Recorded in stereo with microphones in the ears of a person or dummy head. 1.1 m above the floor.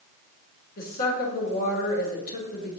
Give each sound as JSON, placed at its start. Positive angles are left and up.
{"t": 0.8, "sound": "a woman speaking", "side_deg": 55, "distance_m": 3.5}